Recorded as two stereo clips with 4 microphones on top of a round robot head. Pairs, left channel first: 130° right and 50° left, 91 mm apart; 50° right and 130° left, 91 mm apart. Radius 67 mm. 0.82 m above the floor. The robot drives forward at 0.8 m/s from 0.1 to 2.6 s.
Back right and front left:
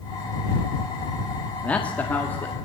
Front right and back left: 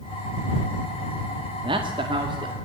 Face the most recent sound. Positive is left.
turn(degrees=160)